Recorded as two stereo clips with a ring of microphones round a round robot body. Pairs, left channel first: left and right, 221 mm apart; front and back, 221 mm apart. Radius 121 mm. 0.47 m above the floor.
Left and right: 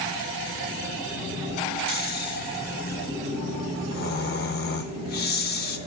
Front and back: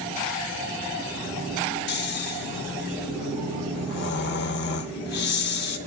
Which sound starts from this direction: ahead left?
Snoring, at 1.9 s.